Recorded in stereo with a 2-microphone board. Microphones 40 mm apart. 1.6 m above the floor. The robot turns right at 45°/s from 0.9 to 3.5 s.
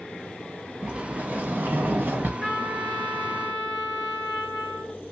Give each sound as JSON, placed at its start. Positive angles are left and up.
{"t": 0.8, "sound": "a sliding door", "azimuth_deg": -145, "distance_m": 1.0}
{"t": 2.4, "sound": "a trumpet", "side_deg": 15, "distance_m": 1.4}